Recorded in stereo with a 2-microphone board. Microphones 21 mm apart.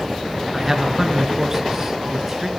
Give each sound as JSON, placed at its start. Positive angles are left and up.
{"t": 0.5, "sound": "a man speaking", "side_deg": -20, "distance_m": 2.5}